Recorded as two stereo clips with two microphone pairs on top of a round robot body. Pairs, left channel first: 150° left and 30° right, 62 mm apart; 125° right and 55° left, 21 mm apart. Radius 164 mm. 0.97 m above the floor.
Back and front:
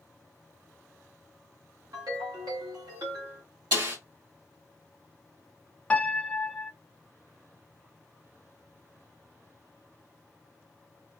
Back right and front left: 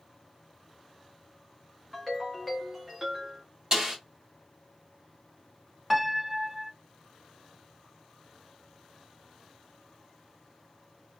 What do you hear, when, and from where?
1.9 s a ringtone: 30° right, 0.7 m
3.7 s a snare drum: 5° right, 1.8 m
5.9 s a piano: 150° left, 0.7 m